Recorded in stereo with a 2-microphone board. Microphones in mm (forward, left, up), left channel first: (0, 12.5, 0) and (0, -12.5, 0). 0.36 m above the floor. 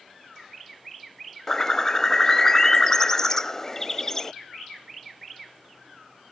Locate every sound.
1.5 s a bird: 20° left (ahead or behind)